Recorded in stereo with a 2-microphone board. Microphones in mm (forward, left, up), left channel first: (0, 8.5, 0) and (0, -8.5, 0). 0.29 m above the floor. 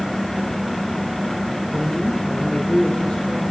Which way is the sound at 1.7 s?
70° left (ahead or behind).